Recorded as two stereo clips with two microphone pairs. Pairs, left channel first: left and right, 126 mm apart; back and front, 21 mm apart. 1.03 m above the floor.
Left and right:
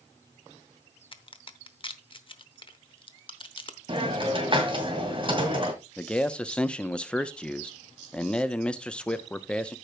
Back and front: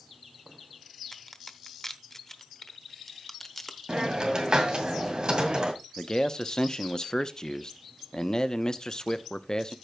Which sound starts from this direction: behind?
A man speaking, at 6.0 s.